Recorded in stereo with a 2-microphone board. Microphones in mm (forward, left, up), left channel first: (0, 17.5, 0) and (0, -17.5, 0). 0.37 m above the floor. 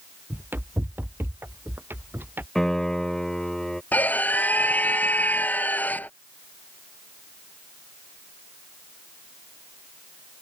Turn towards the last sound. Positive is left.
turn(degrees=50)  # may be behind; listen again after turning